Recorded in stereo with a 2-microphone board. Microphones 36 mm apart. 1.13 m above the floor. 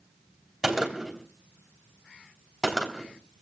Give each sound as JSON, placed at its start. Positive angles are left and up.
{"t": 0.6, "sound": "a gunshot", "side_deg": -10, "distance_m": 3.0}